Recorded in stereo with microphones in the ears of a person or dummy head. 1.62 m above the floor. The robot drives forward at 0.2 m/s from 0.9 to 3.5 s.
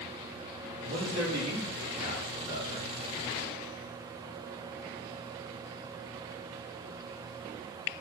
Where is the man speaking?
45° right (ahead or behind), 3 m; by 2.9 s 40° right (ahead or behind), 3.5 m.